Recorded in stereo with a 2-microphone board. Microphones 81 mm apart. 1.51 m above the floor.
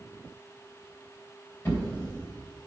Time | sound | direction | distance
1.6 | a drawer | 20° left (ahead or behind) | 3 m